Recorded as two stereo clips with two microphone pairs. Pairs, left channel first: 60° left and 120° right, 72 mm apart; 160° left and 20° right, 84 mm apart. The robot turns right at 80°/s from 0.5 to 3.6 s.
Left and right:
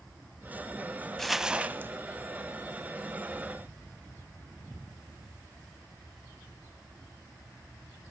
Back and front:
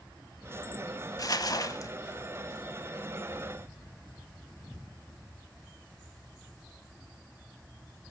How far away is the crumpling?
About 0.6 m.